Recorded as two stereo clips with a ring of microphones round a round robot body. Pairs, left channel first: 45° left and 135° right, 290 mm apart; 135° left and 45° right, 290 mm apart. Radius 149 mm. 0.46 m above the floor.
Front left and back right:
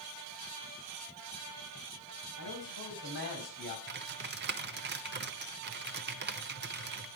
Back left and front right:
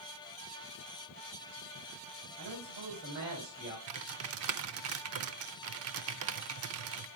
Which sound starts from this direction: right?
Typing on a keyboard, at 3.9 s.